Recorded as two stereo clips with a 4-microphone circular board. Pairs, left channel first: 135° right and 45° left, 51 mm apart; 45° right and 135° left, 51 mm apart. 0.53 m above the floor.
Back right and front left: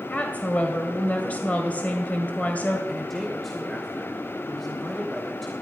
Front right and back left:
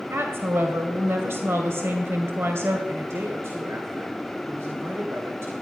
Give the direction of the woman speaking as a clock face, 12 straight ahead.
6 o'clock.